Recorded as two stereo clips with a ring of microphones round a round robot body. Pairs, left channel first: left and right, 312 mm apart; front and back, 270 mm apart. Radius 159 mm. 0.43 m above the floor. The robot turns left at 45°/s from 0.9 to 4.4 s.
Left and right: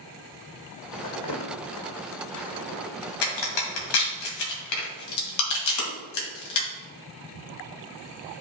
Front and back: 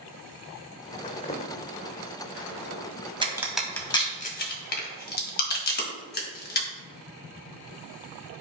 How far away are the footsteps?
About 1.4 m.